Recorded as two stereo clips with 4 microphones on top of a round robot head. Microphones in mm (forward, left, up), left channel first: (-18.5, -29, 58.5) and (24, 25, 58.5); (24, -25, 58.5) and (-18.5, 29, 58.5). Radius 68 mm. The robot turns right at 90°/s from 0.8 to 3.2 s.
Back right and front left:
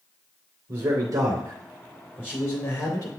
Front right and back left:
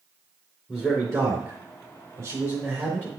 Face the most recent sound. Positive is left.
turn(degrees=-90)